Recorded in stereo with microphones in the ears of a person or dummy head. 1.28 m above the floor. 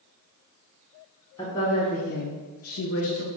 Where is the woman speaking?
15° left (ahead or behind), 1.0 m; by 3.3 s 60° left (ahead or behind), 1.0 m.